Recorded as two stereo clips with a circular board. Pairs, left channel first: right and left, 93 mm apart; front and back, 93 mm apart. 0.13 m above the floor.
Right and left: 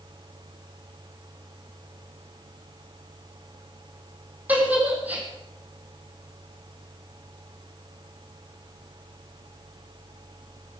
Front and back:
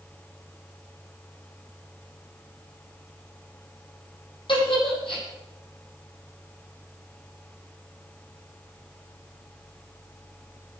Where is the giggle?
20° left, 6 m.